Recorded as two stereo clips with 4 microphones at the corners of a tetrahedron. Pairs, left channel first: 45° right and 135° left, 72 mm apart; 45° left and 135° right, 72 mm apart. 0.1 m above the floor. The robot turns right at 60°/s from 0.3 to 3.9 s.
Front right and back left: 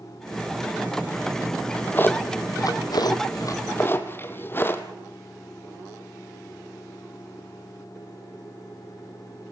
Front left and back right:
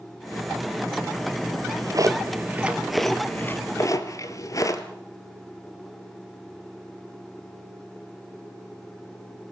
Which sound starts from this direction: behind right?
A drawer, at 1.5 s.